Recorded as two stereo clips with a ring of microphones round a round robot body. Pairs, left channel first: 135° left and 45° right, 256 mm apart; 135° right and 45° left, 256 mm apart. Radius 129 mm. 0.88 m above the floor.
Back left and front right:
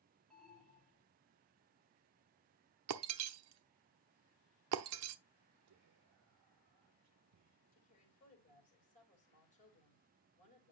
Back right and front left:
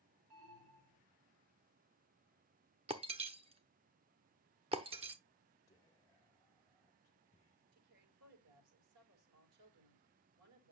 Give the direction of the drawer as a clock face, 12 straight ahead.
I don't hear a drawer.